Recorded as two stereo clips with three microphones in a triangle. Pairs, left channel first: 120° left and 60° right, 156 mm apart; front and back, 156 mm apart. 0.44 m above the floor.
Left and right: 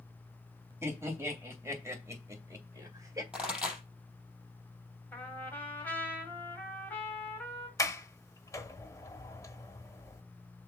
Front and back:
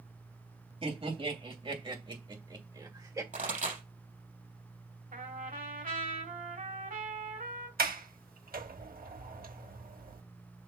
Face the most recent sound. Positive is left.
turn(degrees=-170)